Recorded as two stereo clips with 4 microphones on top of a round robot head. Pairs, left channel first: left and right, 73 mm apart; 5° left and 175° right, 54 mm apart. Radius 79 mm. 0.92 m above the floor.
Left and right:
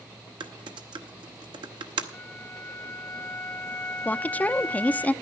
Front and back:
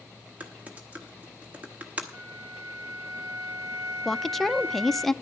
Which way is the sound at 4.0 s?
85° left.